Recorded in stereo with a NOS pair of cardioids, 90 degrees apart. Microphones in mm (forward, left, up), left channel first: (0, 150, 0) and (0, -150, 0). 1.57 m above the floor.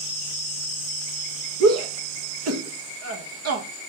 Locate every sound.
1.6 s a shout: 55° right, 1.7 m